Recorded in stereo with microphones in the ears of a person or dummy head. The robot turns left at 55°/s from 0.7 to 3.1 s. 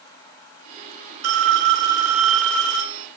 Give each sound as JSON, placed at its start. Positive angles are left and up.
{"t": 1.2, "sound": "a phone ringing", "azimuth_deg": -115, "distance_m": 3.0}